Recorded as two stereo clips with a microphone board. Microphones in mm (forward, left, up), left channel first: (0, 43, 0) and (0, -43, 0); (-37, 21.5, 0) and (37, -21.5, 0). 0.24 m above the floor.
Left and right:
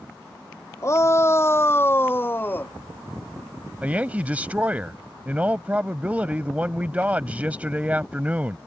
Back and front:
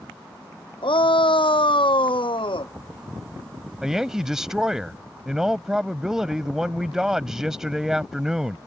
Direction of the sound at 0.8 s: 145° left.